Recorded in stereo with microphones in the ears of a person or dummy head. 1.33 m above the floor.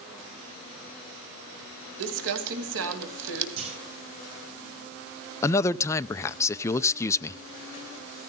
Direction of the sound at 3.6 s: 35° right (ahead or behind).